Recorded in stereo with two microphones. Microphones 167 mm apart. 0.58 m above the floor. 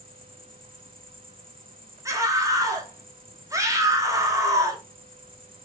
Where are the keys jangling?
I don't hear keys jangling.